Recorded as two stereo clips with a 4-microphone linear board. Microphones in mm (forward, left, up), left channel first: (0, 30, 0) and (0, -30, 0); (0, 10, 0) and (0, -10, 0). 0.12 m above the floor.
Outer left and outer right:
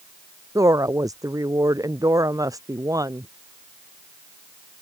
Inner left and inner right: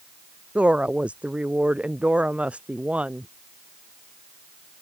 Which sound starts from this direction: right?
A woman speaking, at 0.6 s.